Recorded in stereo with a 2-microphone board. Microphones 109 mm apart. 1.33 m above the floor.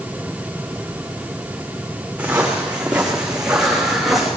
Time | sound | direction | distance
2.2 | footsteps | 15° right (ahead or behind) | 5.5 m